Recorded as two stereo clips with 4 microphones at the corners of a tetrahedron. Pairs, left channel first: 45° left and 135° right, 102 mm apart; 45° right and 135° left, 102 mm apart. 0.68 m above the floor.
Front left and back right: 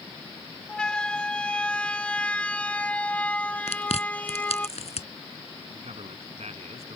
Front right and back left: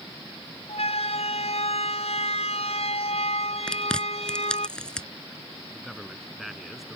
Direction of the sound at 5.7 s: 135° right.